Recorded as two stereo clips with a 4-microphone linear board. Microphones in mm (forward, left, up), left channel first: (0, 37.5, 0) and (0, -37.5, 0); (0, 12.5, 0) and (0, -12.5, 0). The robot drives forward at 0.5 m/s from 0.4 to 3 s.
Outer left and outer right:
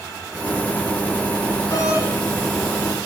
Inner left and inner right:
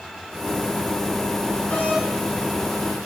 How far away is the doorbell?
About 6 m.